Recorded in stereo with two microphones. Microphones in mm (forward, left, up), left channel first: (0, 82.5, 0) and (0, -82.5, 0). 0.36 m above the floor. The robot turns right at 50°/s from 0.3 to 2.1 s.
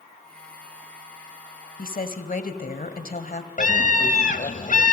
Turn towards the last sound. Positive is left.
turn(degrees=55)  # may be behind; listen again after turning